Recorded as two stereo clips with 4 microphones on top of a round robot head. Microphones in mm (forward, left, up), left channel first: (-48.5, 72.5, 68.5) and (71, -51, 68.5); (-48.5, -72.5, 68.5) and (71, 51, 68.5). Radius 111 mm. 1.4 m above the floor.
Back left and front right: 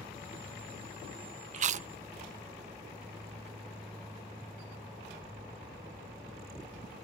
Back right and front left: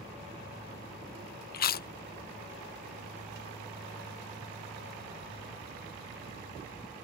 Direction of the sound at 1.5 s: 100° right.